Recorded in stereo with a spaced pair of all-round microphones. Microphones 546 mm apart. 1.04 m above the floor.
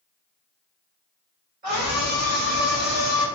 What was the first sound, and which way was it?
A scream, 80° right.